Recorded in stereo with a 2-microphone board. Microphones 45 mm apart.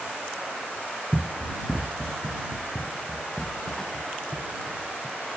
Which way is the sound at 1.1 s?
25° right (ahead or behind).